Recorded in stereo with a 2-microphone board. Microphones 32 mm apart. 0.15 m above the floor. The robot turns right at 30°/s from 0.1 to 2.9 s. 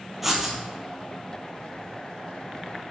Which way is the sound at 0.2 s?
5° right (ahead or behind).